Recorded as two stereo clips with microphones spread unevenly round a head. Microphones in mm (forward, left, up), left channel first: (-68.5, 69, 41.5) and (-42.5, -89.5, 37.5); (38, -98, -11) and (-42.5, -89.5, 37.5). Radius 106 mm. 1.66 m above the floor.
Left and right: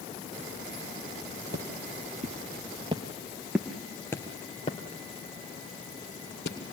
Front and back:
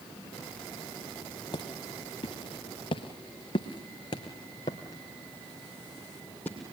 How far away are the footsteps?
About 2.5 m.